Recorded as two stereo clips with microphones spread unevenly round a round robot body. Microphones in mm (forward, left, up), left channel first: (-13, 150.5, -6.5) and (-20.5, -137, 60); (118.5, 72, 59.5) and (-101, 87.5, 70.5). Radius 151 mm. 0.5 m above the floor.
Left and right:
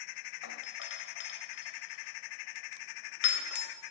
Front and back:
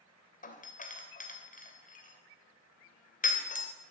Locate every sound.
0.4 s a doorbell: 45° left, 3 m